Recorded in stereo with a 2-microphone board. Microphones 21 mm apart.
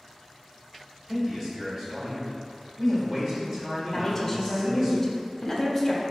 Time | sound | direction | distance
1.1 | a man speaking | 30° right (ahead or behind) | 1.9 m
3.9 | a woman speaking | 15° left (ahead or behind) | 0.8 m